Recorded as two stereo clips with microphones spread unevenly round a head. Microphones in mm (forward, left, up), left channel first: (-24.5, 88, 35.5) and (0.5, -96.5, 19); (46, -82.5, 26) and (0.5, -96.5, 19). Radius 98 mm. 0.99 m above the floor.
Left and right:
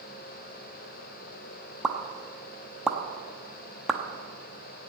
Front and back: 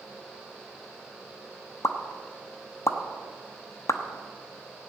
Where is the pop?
5° left, 0.9 m.